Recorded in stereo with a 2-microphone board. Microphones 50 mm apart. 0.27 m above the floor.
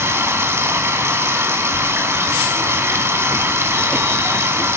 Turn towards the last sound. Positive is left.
turn(degrees=-55)  # may be behind; listen again after turning